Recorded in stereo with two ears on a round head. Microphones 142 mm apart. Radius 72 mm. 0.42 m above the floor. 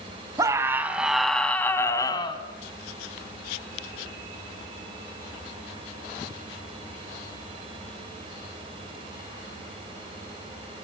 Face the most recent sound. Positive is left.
turn(degrees=30)  # may be behind; listen again after turning